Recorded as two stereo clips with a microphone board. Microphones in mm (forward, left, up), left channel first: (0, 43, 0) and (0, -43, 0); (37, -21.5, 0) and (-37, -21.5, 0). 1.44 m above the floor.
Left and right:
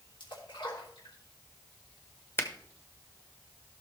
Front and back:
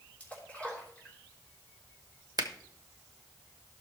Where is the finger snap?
150° left, 1.1 m.